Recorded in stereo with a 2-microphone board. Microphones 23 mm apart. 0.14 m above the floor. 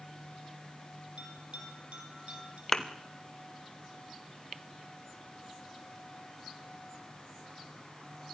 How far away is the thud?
About 1.8 m.